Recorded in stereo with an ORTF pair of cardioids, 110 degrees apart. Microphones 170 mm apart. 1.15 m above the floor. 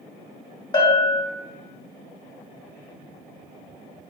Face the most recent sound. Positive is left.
turn(degrees=25)